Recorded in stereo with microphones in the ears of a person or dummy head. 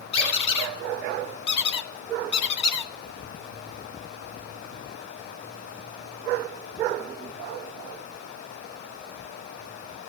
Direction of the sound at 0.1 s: 30° left (ahead or behind).